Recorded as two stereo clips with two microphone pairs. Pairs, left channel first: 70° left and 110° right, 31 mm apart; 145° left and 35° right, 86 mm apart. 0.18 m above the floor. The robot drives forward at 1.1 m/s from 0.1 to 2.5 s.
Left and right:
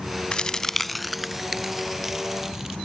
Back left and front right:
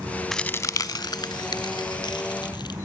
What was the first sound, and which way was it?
A crack, 55° left.